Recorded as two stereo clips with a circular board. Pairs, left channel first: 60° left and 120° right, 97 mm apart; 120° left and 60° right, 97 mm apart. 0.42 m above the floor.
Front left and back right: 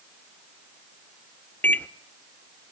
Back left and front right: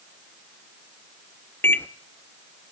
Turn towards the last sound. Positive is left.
turn(degrees=100)